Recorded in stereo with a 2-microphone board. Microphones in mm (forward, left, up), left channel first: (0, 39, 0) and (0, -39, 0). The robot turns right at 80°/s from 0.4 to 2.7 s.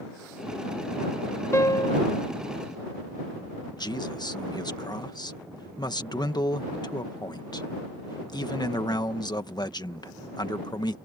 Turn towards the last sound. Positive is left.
turn(degrees=65)  # may be behind; listen again after turning